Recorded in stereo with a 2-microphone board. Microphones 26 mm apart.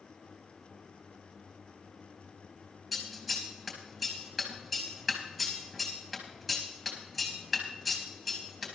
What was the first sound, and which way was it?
Scissors, 5° right (ahead or behind).